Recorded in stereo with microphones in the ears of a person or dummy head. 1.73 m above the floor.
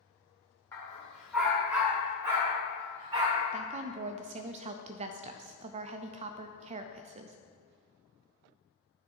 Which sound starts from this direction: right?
A woman speaking, at 3.5 s.